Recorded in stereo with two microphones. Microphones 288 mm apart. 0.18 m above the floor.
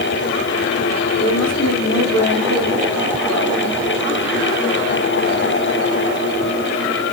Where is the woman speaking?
70° left (ahead or behind), 5.5 m.